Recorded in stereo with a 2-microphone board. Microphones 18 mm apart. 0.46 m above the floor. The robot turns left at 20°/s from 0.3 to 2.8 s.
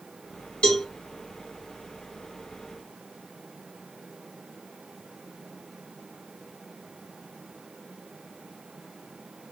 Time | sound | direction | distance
0.6 | a cowbell | 75° left (ahead or behind) | 1.1 m